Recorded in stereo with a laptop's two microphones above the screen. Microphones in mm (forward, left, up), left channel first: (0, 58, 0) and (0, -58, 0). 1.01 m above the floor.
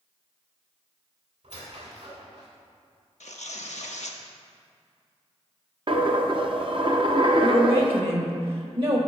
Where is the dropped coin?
45° right (ahead or behind), 0.6 m.